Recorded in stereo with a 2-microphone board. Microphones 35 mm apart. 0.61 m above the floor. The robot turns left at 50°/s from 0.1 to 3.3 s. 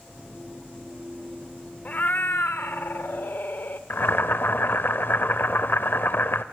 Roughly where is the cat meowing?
Behind left.